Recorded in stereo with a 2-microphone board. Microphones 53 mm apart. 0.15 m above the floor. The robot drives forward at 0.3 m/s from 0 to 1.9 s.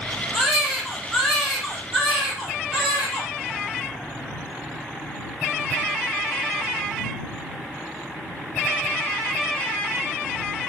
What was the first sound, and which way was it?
A baby crying, centre (ahead or behind).